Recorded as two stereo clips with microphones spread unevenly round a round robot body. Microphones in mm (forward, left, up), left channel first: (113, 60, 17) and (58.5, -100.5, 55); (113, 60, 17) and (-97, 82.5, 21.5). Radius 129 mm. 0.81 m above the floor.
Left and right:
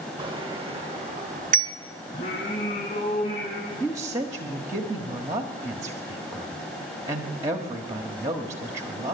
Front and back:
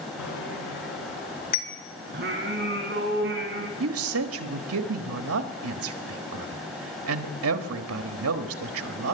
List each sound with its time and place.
0.2 s a bicycle bell: 45° right, 2.5 m; by 1.7 s 70° right, 1.4 m
2.1 s singing: 135° left, 6 m
3.8 s a woman speaking: 170° left, 1.4 m